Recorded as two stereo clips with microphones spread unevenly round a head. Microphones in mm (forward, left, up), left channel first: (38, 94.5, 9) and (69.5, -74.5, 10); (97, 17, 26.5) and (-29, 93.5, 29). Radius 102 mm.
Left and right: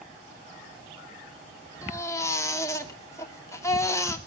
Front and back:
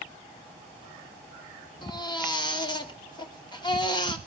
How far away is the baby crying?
About 2.5 m.